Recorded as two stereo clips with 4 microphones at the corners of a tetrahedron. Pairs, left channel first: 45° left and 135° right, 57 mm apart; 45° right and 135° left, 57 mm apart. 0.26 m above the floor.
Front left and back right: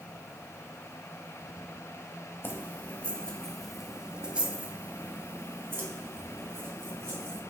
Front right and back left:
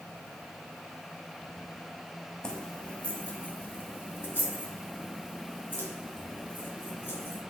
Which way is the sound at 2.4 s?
25° left.